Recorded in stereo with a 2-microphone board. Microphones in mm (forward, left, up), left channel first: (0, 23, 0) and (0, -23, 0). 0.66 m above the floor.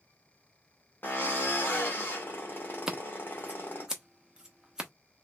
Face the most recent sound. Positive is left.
turn(degrees=-15)  # may be behind; listen again after turning